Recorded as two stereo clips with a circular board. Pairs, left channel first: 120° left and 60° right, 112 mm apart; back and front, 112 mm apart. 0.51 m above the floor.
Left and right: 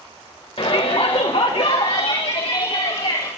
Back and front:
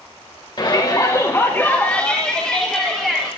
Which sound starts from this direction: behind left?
A shout, at 0.6 s.